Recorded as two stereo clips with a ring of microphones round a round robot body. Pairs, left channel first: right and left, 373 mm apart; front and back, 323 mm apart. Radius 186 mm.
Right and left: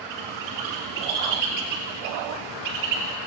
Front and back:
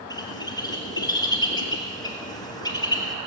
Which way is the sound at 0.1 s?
80° left.